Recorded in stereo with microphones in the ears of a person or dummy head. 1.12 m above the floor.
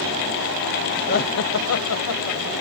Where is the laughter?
45° left (ahead or behind), 0.6 m; by 2.5 s 70° left (ahead or behind), 1.2 m.